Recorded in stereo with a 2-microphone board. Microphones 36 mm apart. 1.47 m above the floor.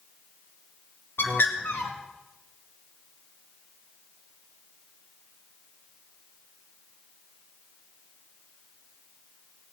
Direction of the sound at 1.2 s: 75° left (ahead or behind).